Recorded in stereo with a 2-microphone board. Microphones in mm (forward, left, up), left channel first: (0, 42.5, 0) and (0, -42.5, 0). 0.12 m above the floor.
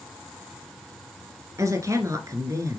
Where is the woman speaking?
40° right (ahead or behind), 1.6 m.